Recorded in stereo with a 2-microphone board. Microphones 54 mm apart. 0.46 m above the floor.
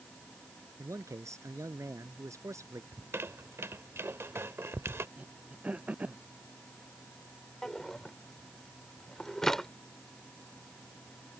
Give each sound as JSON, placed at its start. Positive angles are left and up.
{"t": 0.8, "sound": "a man speaking", "side_deg": -80}
{"t": 2.9, "sound": "a squeak", "side_deg": -55}
{"t": 5.2, "sound": "throat clearing", "side_deg": -30}
{"t": 7.6, "sound": "a drawer", "side_deg": 10}